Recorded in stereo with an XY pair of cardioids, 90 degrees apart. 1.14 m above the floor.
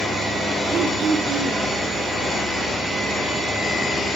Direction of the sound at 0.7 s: 55° right.